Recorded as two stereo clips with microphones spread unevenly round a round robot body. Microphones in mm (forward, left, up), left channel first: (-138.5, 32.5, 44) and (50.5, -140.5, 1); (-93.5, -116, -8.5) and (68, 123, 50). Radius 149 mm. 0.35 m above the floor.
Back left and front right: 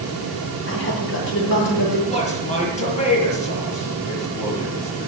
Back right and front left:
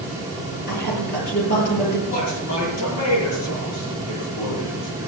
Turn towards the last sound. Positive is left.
turn(degrees=-160)